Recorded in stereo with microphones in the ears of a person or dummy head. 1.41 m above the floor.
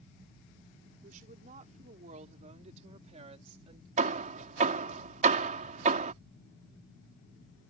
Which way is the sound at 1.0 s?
40° right (ahead or behind).